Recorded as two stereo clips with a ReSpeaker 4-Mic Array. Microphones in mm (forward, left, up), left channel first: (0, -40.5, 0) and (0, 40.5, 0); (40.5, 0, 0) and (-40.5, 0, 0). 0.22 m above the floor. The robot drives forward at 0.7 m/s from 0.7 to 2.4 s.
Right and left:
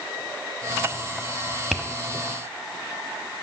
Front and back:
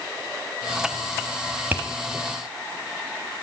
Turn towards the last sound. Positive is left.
turn(degrees=-175)